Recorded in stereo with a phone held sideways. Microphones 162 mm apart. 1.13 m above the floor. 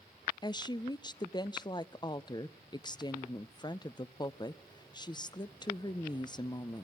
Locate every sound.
0.4 s a woman speaking: 25° left (ahead or behind), 0.6 m